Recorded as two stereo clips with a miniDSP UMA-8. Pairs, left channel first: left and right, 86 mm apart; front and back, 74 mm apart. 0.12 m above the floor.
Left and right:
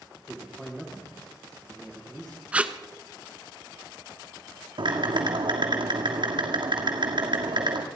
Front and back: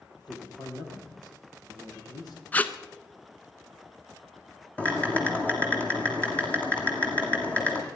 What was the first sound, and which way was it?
A man speaking, 5° left.